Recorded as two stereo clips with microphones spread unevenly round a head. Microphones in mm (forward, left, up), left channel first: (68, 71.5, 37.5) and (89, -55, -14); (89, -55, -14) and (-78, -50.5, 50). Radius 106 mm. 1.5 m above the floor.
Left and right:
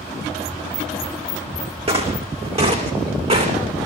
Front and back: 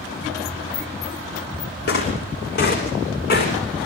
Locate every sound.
1.9 s footsteps: 35° right, 5.5 m; by 3.5 s 40° right, 8 m